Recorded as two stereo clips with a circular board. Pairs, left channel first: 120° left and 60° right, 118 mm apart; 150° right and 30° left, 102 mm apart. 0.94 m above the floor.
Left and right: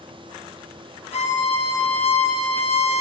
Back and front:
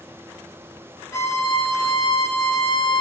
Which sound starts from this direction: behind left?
A violin, at 1.1 s.